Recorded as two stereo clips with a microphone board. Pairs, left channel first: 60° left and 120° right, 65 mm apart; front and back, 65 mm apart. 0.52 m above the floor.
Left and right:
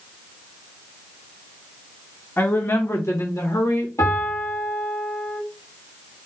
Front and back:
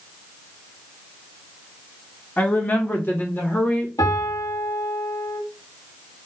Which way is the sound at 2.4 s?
40° left.